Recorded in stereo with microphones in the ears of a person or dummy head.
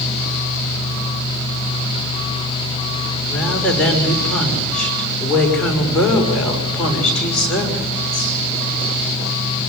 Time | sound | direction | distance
3.3 | a woman speaking | 10° left (ahead or behind) | 6 m